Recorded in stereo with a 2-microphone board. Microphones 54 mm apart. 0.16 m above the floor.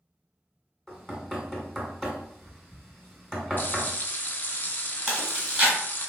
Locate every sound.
0.9 s knocking: 10° left (ahead or behind), 1.1 m
3.6 s frying: 40° left (ahead or behind), 0.5 m
5.1 s chewing: 15° right (ahead or behind), 1.6 m